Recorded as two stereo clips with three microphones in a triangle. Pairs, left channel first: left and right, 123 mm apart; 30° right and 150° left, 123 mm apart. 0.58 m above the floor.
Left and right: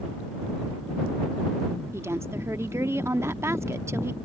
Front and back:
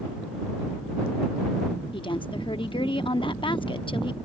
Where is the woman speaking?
30° right.